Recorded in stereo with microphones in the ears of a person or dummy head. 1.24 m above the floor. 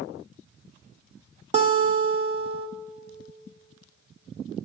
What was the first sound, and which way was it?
A guitar, 35° right (ahead or behind).